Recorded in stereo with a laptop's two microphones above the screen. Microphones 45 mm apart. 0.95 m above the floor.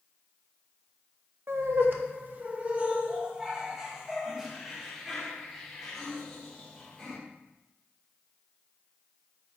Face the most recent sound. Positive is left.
turn(degrees=5)  # may be behind; listen again after turning